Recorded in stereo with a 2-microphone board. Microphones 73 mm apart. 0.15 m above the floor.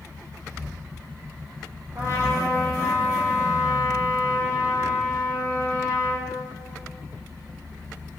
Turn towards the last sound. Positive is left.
turn(degrees=-45)  # may be behind; listen again after turning